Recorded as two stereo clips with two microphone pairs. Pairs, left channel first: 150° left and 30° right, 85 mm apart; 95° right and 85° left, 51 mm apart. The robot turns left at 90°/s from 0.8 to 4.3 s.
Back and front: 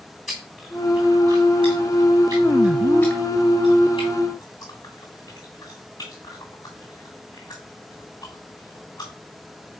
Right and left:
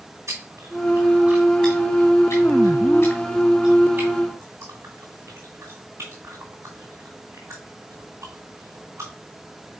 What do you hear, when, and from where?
0.3 s chewing: 65° left, 2.5 m; by 9.1 s 110° left, 2.5 m